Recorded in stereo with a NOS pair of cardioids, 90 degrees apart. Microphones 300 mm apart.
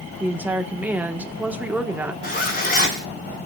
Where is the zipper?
30° left, 5.5 m.